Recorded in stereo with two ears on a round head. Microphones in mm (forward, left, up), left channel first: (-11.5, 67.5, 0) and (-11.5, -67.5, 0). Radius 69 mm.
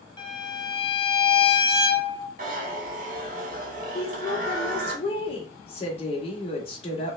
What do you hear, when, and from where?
0.2 s a violin: 30° left (ahead or behind), 0.8 m
2.4 s a zipper: 55° right (ahead or behind), 1.2 m
4.0 s a woman speaking: 40° left (ahead or behind), 1.3 m